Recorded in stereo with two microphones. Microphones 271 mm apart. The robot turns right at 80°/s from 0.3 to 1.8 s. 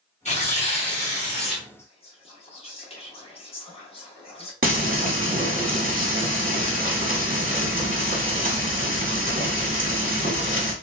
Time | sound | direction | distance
0.2 | tearing paper | 25° left (ahead or behind) | 1.2 m
1.8 | whispering | 25° left (ahead or behind) | 1.0 m
4.6 | frying | 35° right (ahead or behind) | 1.0 m